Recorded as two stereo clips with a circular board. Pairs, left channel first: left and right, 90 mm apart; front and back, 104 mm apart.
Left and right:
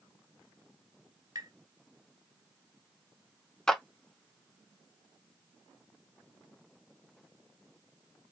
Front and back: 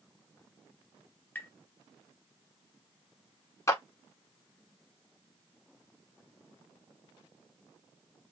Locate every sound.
1.4 s tapping: 65° right, 1.6 m
3.7 s a clap: 15° left, 1.2 m